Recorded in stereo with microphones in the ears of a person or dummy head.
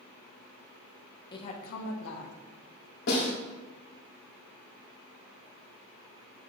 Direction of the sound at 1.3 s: 25° left (ahead or behind).